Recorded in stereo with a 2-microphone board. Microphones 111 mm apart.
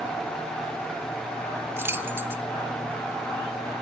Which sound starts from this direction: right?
Keys jangling, at 1.8 s.